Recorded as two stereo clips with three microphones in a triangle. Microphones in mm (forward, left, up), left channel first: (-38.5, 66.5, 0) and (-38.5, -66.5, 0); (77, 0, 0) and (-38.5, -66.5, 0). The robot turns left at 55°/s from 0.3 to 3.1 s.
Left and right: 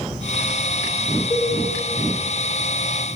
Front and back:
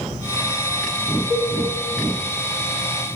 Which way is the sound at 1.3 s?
85° right.